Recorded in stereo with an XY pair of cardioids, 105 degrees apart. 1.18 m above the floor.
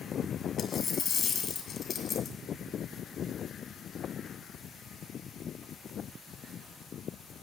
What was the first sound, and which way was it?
A dropped coin, 55° left.